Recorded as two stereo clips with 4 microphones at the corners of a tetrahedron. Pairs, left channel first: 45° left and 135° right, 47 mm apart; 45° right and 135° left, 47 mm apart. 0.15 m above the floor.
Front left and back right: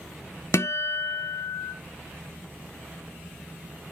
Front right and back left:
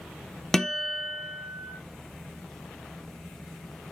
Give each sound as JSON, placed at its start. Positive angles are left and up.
{"t": 0.5, "sound": "a guitar", "azimuth_deg": 35, "distance_m": 0.7}